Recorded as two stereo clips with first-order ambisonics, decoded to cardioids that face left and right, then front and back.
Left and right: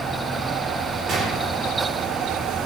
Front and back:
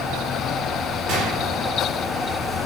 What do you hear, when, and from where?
1.1 s a gunshot: 155° right, 5 m